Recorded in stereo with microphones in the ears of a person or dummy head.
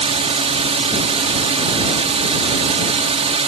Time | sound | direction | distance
0.0 | a drone | 35° right (ahead or behind) | ?